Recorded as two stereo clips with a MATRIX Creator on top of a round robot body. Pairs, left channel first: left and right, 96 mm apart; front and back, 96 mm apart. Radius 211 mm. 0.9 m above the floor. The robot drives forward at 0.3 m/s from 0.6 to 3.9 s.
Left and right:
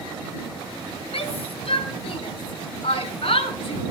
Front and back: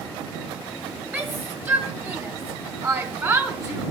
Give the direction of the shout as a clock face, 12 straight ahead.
8 o'clock.